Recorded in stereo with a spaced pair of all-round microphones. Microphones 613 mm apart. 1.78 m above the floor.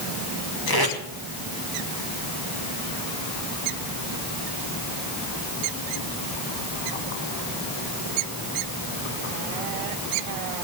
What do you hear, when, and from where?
0.7 s tape being pulled: 35° left (ahead or behind), 3.5 m